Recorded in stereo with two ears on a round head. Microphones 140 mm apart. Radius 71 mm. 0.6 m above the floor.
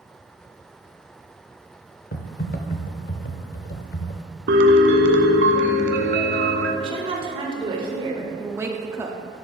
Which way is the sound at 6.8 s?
35° right (ahead or behind).